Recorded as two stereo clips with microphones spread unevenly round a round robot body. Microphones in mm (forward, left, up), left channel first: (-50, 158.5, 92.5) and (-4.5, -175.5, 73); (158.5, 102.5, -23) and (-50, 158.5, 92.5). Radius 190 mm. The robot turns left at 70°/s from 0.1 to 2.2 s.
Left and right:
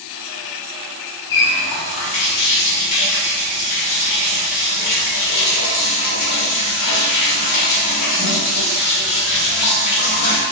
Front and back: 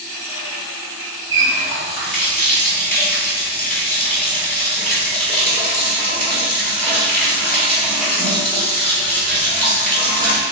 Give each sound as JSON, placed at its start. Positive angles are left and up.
{"t": 1.3, "sound": "a running tap", "azimuth_deg": 120, "distance_m": 1.1}